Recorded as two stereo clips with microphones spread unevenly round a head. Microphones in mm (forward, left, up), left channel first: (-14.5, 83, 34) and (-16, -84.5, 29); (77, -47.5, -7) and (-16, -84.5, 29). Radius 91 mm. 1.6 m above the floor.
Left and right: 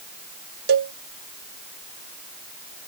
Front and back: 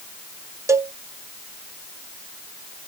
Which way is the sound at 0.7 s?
115° right.